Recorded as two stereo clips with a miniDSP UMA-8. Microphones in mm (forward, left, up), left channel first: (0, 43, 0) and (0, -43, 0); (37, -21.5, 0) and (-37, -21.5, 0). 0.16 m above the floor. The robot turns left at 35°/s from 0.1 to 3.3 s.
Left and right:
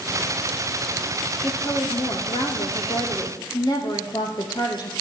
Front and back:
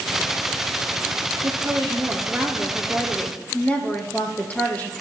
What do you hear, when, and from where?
1.4 s a woman speaking: 135° left, 3 m; by 4.9 s 65° left, 3 m